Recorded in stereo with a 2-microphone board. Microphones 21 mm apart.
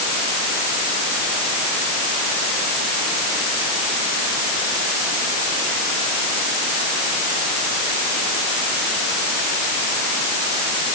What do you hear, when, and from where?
Only background noise.